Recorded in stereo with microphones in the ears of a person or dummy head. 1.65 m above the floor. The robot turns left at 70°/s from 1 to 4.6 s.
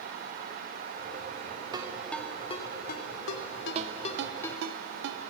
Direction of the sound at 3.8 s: 35° right (ahead or behind).